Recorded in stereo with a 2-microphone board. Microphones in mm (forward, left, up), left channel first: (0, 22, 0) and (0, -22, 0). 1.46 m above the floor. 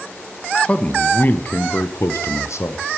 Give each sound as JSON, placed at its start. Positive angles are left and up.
{"t": 0.6, "sound": "a man speaking", "side_deg": 20, "distance_m": 1.2}